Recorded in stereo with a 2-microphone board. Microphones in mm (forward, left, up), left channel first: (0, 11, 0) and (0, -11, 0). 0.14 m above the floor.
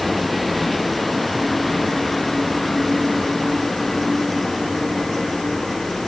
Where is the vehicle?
5° left (ahead or behind); by 6.1 s 15° left (ahead or behind).